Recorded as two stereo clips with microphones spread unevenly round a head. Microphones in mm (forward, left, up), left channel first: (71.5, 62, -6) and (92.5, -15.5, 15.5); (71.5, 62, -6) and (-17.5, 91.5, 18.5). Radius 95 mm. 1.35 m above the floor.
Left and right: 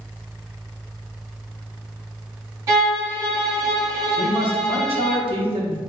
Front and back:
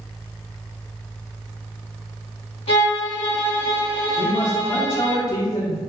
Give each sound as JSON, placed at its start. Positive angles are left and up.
{"t": 2.7, "sound": "a violin", "azimuth_deg": -50, "distance_m": 1.8}
{"t": 4.2, "sound": "a man speaking", "azimuth_deg": -75, "distance_m": 1.1}